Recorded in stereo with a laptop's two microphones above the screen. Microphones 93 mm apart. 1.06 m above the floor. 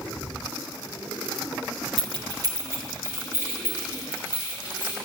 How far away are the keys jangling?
About 0.6 m.